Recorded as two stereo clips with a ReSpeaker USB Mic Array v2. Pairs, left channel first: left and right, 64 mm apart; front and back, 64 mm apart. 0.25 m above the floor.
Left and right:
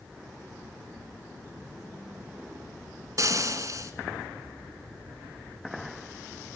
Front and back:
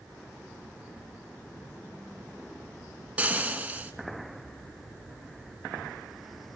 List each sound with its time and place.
3.2 s frying: 110° right, 2.5 m